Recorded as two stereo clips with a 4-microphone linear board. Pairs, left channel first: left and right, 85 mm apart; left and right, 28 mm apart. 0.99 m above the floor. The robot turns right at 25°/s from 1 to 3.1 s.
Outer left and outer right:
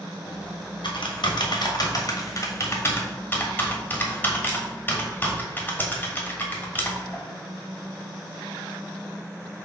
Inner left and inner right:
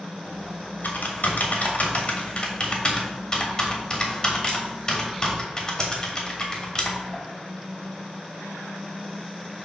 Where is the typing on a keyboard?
65° left (ahead or behind), 1.3 m; by 7.2 s 20° left (ahead or behind), 1.3 m.